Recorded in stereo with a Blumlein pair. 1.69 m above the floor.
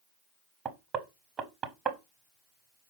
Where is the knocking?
25° right, 0.8 m.